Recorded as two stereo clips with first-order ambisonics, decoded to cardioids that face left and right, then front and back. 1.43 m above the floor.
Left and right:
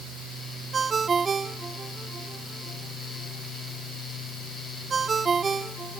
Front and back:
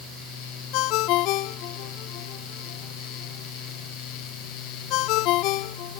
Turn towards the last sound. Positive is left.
turn(degrees=-20)